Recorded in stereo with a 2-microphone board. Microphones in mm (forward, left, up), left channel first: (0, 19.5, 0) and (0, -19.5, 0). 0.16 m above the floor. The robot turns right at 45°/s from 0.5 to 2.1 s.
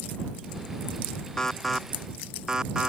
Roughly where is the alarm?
Centre.